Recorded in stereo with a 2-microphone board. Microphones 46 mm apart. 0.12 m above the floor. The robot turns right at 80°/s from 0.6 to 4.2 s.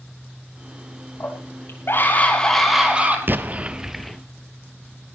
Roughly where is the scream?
Ahead left.